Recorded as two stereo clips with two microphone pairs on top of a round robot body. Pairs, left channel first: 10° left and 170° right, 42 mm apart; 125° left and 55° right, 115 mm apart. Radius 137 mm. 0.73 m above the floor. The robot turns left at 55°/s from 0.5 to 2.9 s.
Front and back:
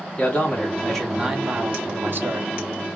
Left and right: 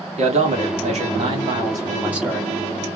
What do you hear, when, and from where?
0.2 s a man speaking: 45° right, 2.0 m; by 2.5 s 155° right, 2.0 m